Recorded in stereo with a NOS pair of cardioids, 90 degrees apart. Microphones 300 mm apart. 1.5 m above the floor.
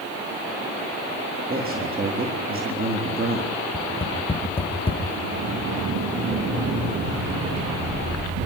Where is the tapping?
20° left, 3.5 m.